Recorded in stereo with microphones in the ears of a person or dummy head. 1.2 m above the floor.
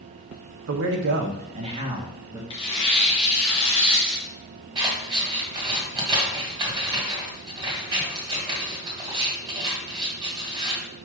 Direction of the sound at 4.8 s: 30° right (ahead or behind).